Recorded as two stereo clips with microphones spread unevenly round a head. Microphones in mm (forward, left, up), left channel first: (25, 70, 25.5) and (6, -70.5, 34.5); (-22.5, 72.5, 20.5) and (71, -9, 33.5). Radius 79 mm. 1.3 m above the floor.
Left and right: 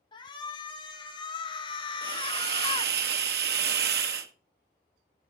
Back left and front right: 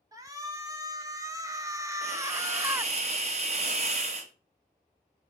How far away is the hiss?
About 1.0 m.